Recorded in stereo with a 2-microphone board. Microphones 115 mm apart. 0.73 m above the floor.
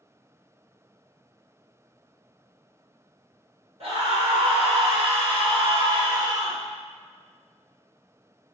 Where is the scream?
60° right (ahead or behind), 1.9 m; by 6.6 s 30° right (ahead or behind), 1.1 m.